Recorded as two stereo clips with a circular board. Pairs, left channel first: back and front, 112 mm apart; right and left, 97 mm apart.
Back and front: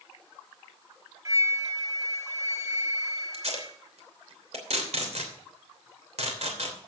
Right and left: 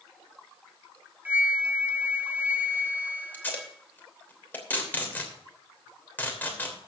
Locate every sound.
1.2 s a flute: 35° left, 1.0 m
3.3 s tape being pulled: 20° right, 3 m